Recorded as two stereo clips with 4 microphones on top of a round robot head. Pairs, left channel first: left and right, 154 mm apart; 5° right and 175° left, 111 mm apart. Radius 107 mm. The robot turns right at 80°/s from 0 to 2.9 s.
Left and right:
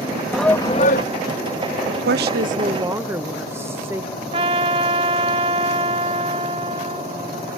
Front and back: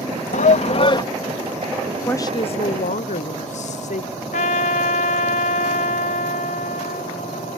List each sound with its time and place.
0.3 s a shout: 5° right; by 1.0 s 50° left
1.9 s a woman speaking: 95° right; by 4.1 s 15° right
4.3 s a trumpet: 25° right